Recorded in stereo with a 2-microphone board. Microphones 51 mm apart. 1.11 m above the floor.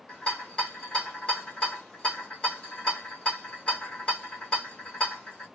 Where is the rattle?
20° left (ahead or behind), 1.6 m.